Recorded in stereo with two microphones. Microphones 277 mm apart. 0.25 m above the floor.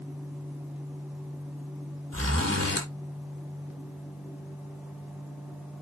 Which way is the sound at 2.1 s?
55° right (ahead or behind).